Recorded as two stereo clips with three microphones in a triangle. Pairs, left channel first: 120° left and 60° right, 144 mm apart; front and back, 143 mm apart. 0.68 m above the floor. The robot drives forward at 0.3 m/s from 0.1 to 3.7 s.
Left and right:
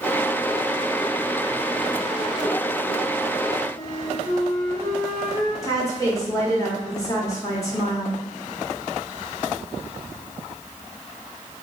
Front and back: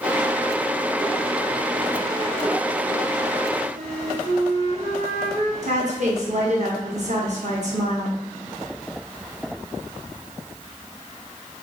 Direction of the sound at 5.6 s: Straight behind.